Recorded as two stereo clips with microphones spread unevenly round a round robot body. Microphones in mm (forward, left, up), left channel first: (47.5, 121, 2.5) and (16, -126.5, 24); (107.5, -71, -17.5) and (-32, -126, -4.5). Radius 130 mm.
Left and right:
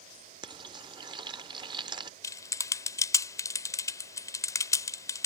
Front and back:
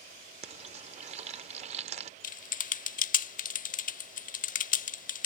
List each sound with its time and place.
0.4 s frying: 165° right
2.2 s typing on a keyboard: 10° left